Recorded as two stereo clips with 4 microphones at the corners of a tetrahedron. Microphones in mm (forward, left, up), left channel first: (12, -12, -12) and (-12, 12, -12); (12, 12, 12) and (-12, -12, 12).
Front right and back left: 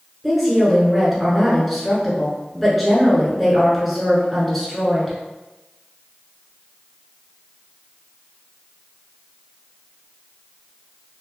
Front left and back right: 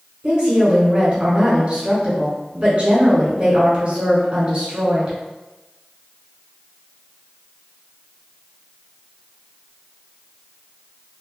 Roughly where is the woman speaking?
Behind right.